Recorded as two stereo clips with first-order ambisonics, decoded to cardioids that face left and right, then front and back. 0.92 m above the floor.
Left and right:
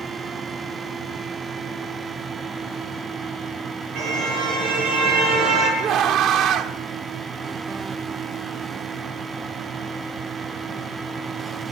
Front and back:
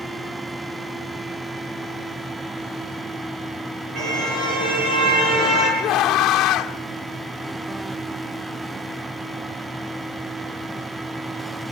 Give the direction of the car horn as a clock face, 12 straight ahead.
4 o'clock.